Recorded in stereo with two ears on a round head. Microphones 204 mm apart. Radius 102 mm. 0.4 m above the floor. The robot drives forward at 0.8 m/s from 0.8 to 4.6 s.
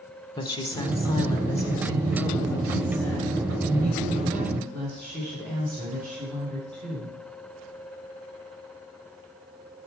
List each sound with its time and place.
0.4 s a woman speaking: 20° left (ahead or behind), 0.9 m; by 7.2 s 5° left (ahead or behind), 3.5 m